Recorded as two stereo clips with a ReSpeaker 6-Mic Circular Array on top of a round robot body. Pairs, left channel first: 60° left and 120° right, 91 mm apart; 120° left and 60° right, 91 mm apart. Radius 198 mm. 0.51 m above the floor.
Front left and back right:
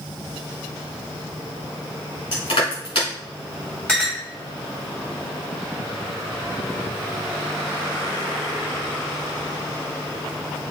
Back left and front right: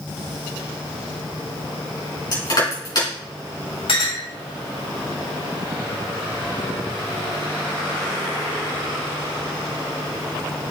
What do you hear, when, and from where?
2.3 s crushing: 80° left, 4 m
3.9 s a clink: 140° left, 3 m